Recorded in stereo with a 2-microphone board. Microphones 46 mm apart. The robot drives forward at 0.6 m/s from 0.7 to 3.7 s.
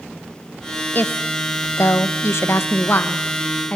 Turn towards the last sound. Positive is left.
turn(degrees=30)  # may be behind; listen again after turning